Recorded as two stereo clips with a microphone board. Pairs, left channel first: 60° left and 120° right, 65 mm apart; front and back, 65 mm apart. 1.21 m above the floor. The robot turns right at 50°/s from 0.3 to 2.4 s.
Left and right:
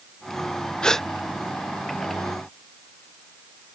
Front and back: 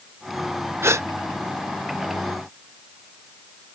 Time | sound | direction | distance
0.8 | a gasp | 135° left | ?